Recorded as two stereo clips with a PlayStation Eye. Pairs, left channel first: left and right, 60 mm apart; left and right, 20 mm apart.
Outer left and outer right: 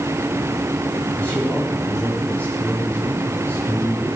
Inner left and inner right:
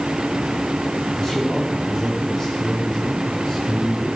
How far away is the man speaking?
About 7 m.